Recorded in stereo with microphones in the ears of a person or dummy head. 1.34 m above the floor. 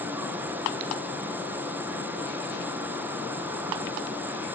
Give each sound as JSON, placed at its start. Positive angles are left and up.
{"t": 0.0, "sound": "an insect", "side_deg": -15}